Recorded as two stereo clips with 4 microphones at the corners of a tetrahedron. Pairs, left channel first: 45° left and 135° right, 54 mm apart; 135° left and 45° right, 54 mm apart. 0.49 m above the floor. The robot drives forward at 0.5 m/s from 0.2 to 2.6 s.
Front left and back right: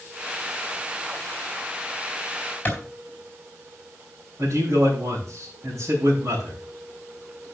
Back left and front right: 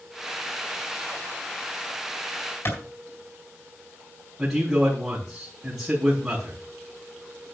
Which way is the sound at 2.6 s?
105° left.